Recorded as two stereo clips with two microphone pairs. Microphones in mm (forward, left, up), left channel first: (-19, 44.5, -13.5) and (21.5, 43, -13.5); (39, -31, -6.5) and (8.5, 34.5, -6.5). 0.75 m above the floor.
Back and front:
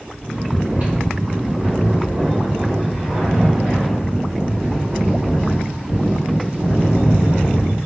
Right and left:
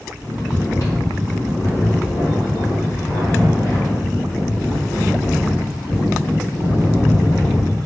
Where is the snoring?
35° right, 1.3 m.